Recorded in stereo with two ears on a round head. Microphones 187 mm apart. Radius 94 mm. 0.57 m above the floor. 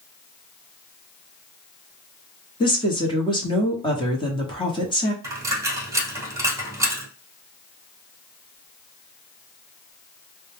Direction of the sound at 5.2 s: 15° right (ahead or behind).